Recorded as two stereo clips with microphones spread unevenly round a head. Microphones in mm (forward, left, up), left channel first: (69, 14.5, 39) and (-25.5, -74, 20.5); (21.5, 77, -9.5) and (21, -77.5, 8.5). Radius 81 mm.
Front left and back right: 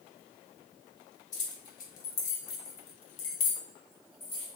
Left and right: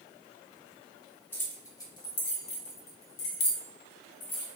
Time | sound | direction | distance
1.3 | keys jangling | 15° left | 1.1 m